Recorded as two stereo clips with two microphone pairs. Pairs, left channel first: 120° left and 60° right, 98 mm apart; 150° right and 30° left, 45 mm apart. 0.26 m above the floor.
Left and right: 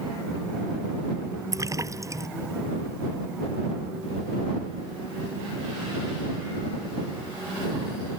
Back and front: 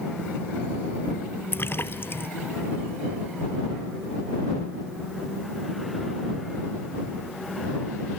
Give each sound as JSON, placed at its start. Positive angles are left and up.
{"t": 1.5, "sound": "a splash", "azimuth_deg": -115}